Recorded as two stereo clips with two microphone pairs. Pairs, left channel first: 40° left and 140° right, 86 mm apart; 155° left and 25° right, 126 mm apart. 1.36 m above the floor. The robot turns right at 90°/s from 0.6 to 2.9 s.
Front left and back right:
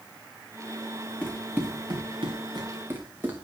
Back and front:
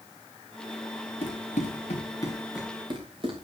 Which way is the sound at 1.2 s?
120° left.